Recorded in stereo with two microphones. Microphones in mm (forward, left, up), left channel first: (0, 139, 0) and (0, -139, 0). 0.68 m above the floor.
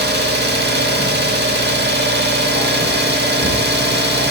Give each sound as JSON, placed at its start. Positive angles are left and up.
{"t": 0.0, "sound": "an engine running", "side_deg": -40, "distance_m": 0.7}